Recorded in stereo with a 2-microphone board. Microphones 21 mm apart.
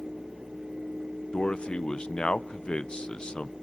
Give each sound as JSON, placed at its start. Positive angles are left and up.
{"t": 1.3, "sound": "a man speaking", "side_deg": 50, "distance_m": 0.5}